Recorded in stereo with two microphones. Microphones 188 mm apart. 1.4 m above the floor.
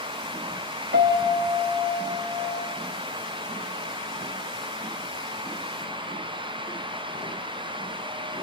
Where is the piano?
60° right (ahead or behind), 3 m.